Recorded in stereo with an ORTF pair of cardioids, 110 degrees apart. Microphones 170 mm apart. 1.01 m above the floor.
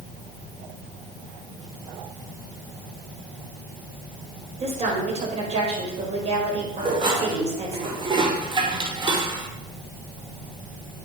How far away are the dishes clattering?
About 2 m.